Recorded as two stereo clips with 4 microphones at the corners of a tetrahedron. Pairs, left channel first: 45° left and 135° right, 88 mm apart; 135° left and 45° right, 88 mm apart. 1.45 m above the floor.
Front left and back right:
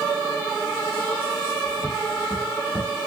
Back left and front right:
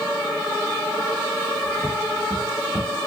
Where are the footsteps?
95° left, 1.4 m; by 2.9 s 55° right, 1.6 m.